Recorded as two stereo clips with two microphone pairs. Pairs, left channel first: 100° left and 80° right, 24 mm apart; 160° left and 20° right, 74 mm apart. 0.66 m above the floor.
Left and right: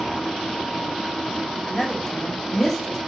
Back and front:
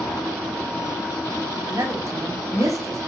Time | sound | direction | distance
1.7 | a woman speaking | 30° left | 5.5 m